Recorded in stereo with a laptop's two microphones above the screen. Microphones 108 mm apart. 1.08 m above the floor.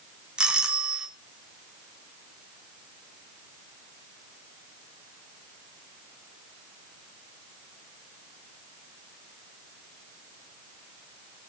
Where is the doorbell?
10° right (ahead or behind), 1.9 m.